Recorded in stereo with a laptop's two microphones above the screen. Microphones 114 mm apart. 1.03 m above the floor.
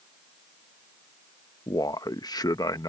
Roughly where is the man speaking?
Left.